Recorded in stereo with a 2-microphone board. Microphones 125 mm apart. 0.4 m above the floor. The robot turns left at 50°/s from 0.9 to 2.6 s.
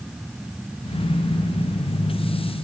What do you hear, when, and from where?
Only background noise.